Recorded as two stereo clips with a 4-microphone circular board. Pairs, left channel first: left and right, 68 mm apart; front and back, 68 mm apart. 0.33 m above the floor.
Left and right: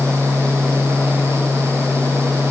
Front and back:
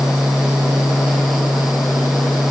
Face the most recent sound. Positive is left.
No sound to turn to.